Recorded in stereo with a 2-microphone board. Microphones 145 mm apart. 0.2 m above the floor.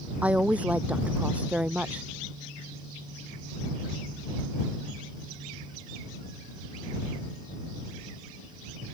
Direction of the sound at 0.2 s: 10° right (ahead or behind).